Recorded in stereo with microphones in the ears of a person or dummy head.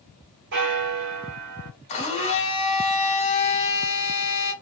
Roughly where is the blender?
Left.